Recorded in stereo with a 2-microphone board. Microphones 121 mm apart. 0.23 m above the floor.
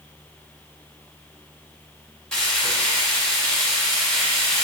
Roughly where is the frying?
Centre.